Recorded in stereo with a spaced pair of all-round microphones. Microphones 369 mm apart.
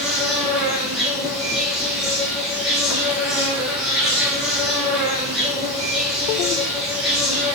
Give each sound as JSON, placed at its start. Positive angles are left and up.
{"t": 0.0, "sound": "an insect", "side_deg": 0, "distance_m": 1.2}